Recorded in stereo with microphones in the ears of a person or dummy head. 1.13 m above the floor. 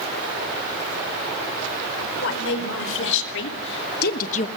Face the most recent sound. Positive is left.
turn(degrees=35)  # may be behind; listen again after turning